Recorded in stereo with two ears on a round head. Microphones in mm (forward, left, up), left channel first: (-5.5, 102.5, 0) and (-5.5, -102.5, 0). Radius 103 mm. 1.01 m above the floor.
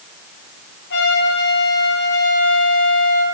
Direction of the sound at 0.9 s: 50° left (ahead or behind).